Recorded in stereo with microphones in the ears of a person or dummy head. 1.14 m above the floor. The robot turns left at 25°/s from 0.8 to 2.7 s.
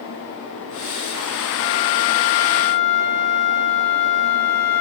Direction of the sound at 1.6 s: 30° left (ahead or behind).